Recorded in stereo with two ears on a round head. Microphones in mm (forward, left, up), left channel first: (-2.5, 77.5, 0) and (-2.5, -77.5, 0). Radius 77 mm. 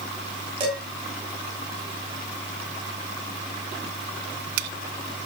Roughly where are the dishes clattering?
Right.